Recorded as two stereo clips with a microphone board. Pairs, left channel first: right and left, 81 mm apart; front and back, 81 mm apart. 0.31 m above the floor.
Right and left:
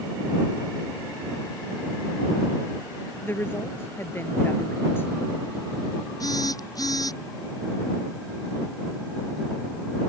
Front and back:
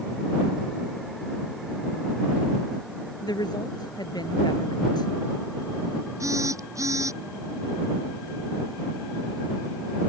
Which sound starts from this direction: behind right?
A phone buzzing, at 6.2 s.